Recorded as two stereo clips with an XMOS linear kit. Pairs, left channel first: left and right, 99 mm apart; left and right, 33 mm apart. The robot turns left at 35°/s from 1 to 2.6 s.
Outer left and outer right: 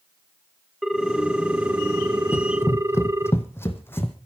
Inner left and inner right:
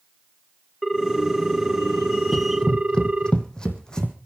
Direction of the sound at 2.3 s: 25° left (ahead or behind).